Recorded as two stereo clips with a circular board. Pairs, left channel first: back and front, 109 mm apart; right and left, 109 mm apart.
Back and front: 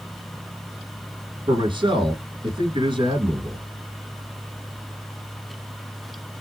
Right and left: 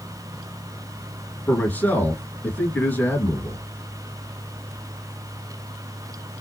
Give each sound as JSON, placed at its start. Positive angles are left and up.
{"t": 1.5, "sound": "a man speaking", "azimuth_deg": -20, "distance_m": 2.5}